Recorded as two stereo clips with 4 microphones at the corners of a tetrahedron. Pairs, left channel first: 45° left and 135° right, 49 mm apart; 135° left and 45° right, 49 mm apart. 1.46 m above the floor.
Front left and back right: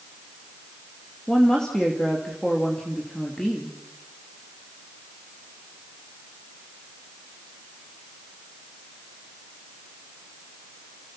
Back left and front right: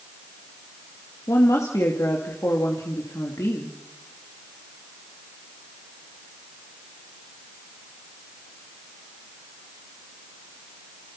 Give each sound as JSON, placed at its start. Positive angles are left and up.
{"t": 1.3, "sound": "a woman speaking", "azimuth_deg": 120, "distance_m": 2.5}